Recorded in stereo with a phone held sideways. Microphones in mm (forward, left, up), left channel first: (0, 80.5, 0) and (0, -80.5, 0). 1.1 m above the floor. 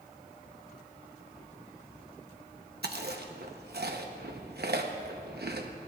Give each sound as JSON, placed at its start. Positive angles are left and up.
{"t": 2.8, "sound": "chewing", "side_deg": -85, "distance_m": 0.9}